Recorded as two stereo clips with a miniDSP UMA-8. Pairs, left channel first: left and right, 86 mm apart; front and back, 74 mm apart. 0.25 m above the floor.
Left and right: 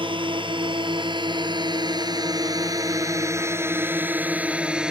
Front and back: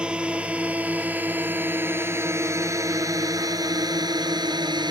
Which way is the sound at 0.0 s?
105° right.